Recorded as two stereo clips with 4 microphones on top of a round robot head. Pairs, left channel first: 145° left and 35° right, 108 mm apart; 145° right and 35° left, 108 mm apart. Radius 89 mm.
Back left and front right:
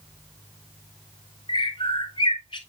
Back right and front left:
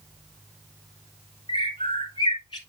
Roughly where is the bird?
Behind.